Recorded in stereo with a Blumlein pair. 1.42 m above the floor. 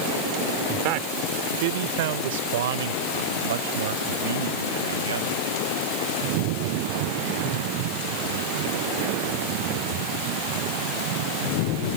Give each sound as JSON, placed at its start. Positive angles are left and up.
{"t": 0.7, "sound": "a man speaking", "azimuth_deg": -40}